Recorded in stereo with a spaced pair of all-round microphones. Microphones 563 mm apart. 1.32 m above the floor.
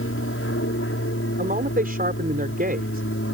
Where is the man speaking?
15° right (ahead or behind).